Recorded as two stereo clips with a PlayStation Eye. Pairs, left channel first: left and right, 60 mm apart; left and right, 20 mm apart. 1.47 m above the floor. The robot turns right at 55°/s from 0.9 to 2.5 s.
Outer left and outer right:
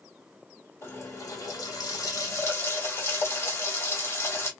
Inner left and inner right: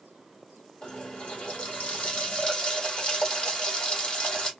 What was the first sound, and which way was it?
A running tap, 45° left.